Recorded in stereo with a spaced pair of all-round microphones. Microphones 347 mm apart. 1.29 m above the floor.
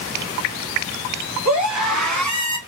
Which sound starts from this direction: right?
A scream, at 1.4 s.